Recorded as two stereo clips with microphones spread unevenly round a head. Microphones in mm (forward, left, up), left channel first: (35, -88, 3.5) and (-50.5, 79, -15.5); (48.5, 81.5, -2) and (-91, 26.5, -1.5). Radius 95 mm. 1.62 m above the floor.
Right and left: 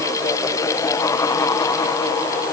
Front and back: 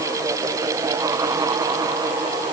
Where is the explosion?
I don't hear an explosion.